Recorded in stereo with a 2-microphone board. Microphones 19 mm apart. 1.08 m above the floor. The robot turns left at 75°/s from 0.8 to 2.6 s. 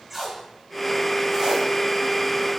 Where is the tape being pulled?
5° right (ahead or behind), 1.6 m; by 1.7 s 60° right (ahead or behind), 1.6 m.